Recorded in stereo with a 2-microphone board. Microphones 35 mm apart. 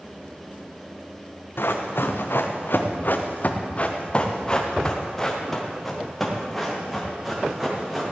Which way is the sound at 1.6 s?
80° left.